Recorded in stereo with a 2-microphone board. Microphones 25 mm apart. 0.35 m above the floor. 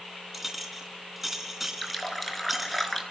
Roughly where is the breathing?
I don't hear breathing.